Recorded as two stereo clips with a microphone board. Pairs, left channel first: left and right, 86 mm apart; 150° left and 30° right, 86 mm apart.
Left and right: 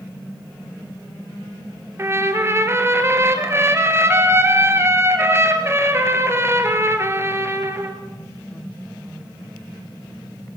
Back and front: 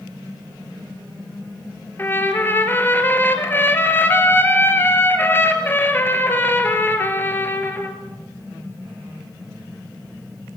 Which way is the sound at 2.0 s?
145° right.